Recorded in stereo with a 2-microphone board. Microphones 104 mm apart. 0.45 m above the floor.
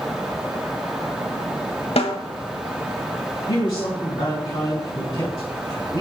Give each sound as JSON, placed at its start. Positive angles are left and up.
{"t": 2.0, "sound": "a snare drum", "side_deg": 75, "distance_m": 1.2}
{"t": 3.5, "sound": "a man speaking", "side_deg": 55, "distance_m": 4.0}